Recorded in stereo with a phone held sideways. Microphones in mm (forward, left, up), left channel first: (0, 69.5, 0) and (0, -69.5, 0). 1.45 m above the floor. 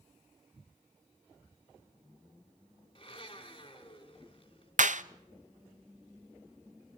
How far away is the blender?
About 3 m.